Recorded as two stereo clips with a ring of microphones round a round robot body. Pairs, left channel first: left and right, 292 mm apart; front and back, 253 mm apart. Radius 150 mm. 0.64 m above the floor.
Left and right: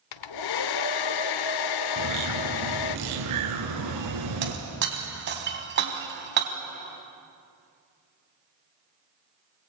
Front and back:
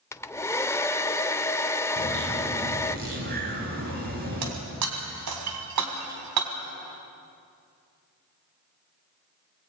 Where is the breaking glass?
145° right, 3 m.